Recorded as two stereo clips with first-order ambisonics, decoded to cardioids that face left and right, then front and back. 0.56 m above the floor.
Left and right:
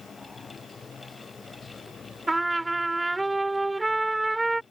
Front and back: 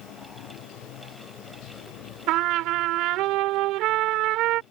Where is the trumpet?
170° right.